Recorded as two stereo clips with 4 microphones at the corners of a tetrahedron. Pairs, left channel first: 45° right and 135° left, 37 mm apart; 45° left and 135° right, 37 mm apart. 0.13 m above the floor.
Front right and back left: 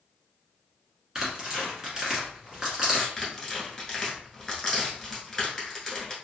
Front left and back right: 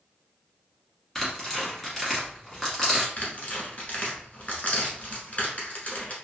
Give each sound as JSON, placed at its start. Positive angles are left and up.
{"t": 1.1, "sound": "tearing paper", "azimuth_deg": 110, "distance_m": 1.3}
{"t": 3.2, "sound": "tearing paper", "azimuth_deg": 30, "distance_m": 1.1}